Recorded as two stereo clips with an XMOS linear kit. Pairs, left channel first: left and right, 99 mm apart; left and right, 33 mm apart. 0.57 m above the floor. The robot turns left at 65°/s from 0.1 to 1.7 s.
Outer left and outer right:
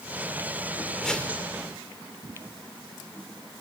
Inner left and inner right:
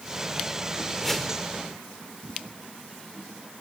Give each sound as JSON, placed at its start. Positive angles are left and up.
{"t": 1.0, "sound": "a whoosh", "side_deg": 0, "distance_m": 1.8}